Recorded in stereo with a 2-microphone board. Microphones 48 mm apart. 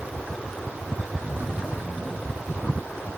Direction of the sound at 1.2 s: 40° right (ahead or behind).